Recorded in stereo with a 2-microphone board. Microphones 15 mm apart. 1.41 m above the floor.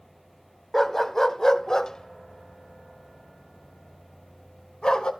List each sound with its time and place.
0.7 s a dog barking: 20° left (ahead or behind), 1.1 m; by 5.1 s 65° left (ahead or behind), 3 m